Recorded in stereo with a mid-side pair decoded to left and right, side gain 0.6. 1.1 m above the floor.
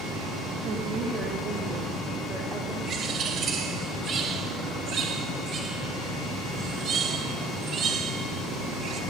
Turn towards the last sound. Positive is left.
turn(degrees=-45)